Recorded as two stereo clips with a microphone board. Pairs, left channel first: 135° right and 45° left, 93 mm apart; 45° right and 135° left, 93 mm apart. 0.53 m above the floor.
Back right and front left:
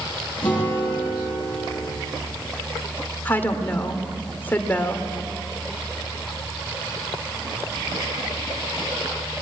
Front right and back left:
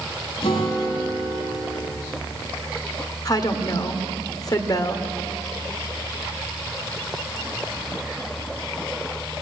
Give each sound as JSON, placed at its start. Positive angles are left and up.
{"t": 0.4, "sound": "a guitar", "azimuth_deg": -60, "distance_m": 9.5}
{"t": 3.2, "sound": "a woman speaking", "azimuth_deg": -70, "distance_m": 1.9}